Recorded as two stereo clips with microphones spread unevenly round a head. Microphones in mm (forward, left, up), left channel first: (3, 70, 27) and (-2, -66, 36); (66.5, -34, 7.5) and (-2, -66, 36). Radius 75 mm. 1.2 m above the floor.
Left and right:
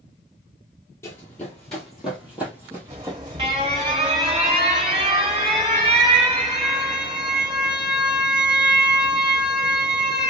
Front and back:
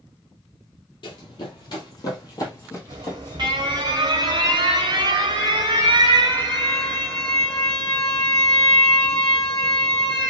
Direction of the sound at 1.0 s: 20° left.